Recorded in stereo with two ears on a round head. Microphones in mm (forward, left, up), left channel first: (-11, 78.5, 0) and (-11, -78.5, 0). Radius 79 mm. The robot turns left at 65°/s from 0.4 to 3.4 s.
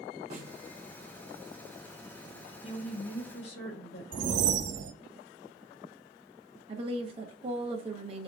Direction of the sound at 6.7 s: 30° right (ahead or behind).